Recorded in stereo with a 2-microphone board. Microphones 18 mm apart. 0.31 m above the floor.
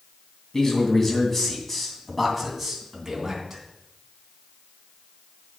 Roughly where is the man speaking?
Left.